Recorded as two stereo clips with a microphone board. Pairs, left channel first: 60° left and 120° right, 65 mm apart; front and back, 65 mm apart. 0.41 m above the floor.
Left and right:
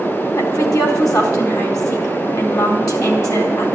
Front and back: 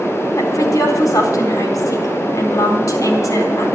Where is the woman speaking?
35° left, 4 m.